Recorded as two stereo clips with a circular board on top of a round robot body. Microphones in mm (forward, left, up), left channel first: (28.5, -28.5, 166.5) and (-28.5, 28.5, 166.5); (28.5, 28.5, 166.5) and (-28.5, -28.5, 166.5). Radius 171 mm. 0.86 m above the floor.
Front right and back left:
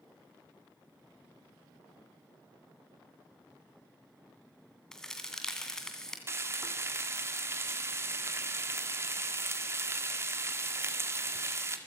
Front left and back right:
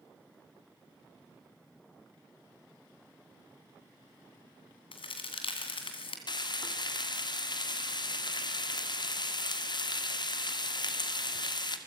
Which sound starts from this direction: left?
Frying, at 6.3 s.